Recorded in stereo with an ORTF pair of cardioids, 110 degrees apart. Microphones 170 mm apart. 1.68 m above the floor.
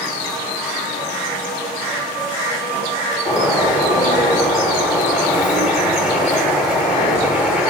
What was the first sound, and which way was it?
A bird, 10° right.